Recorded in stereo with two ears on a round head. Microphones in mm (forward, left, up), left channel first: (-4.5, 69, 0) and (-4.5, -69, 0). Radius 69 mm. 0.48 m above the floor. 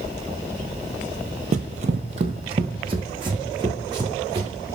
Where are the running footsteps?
50° right (ahead or behind), 0.7 m; by 4.5 s 25° right (ahead or behind), 2.5 m.